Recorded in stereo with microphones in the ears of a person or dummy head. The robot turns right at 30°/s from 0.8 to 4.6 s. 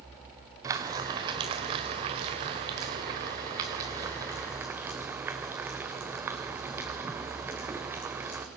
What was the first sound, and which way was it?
Frying, 10° right (ahead or behind).